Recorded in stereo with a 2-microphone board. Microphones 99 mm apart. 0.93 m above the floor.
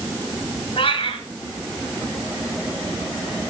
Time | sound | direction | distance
0.8 | a cat meowing | 65° left (ahead or behind) | 1.7 m